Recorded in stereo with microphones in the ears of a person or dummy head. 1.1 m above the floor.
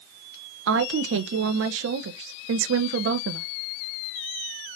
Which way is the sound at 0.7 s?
65° right (ahead or behind).